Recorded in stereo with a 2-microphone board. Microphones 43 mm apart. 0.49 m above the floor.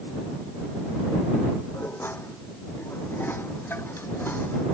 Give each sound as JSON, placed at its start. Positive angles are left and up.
{"t": 1.7, "sound": "dishes clattering", "side_deg": 60}